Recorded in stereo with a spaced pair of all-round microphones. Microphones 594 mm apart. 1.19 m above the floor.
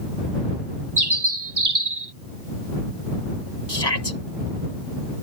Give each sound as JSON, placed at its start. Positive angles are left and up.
{"t": 1.0, "sound": "a bird", "side_deg": -40}
{"t": 3.7, "sound": "a shout", "side_deg": 40}